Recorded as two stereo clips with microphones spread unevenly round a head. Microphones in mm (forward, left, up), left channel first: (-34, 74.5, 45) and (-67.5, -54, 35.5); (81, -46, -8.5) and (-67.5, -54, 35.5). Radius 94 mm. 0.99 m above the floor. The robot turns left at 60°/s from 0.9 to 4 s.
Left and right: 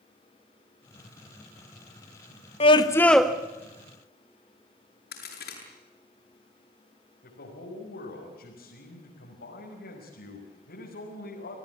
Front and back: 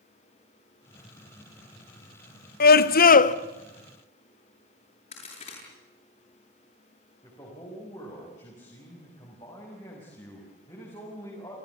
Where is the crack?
65° left, 8 m.